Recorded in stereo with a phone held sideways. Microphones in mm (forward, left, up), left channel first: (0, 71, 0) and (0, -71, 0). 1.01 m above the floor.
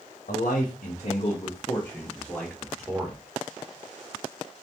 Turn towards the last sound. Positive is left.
turn(degrees=-10)  # may be behind; listen again after turning